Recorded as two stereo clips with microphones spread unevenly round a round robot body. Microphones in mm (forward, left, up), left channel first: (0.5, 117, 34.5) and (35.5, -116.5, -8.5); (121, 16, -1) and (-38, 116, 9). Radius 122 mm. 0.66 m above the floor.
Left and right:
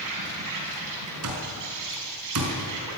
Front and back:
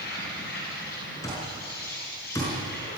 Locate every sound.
0.0 s an insect: 90° right, 6.5 m
1.2 s an alarm clock: 110° right, 5 m